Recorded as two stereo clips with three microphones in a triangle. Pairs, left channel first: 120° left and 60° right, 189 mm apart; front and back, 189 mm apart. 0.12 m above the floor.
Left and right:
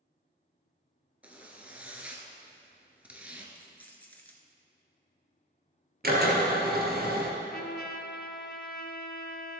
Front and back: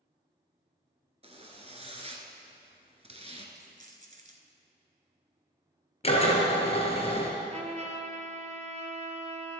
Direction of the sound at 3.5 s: 165° right.